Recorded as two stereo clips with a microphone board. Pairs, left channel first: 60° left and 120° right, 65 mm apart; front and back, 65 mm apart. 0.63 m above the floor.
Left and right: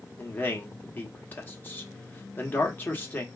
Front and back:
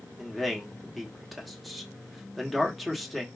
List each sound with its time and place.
0.2 s a man speaking: 90° left, 1.2 m